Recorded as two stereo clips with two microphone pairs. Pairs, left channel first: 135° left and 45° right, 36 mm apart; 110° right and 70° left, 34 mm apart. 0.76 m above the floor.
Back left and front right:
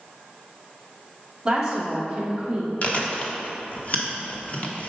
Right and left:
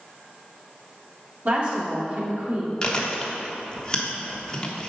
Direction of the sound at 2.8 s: Straight behind.